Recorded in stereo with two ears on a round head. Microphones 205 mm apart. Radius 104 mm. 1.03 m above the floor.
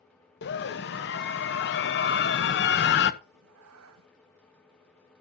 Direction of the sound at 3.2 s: 65° right (ahead or behind).